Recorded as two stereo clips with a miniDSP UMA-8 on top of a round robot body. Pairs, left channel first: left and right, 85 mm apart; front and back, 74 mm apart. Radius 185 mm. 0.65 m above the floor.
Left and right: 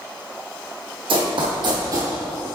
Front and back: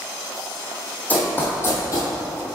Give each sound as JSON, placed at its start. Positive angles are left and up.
{"t": 1.1, "sound": "running footsteps", "azimuth_deg": -70, "distance_m": 1.7}